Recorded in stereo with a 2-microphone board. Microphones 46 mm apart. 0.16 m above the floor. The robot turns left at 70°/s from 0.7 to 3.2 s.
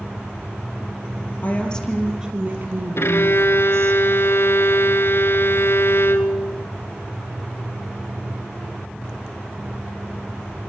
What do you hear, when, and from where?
1.4 s a woman speaking: 40° left, 5 m; by 4.0 s 85° right, 5 m
3.0 s a violin: 60° left (ahead or behind), 1.5 m